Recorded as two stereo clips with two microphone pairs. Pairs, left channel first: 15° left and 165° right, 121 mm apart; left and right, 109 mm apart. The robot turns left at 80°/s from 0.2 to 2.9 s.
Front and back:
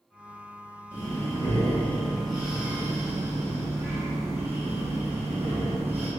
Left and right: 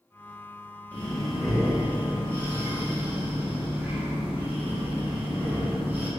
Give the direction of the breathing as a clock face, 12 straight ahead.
11 o'clock.